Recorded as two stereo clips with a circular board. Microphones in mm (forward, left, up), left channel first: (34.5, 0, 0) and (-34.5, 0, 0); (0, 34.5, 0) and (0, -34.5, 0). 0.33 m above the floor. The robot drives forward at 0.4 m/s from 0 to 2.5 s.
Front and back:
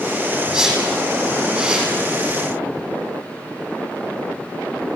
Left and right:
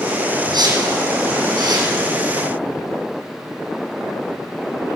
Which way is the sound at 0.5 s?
100° right.